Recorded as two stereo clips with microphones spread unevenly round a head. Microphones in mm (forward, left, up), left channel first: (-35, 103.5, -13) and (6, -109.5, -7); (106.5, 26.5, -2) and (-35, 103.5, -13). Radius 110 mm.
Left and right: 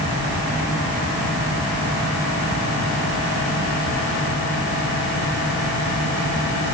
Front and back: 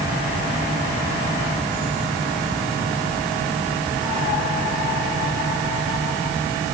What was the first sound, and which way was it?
Only background noise.